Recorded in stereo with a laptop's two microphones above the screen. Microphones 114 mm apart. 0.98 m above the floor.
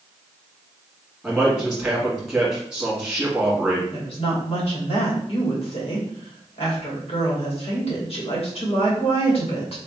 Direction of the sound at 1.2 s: Centre (ahead or behind).